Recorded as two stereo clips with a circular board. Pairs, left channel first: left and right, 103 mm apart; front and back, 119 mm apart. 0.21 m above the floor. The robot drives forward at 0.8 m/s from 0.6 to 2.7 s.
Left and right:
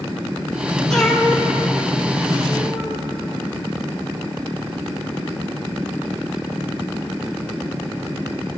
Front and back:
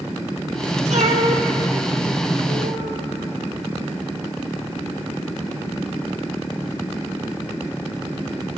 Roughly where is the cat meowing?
Behind.